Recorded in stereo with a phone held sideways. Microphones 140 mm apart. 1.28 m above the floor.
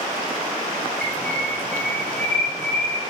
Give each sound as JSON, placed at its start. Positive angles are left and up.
{"t": 1.0, "sound": "a bird", "side_deg": 10, "distance_m": 2.5}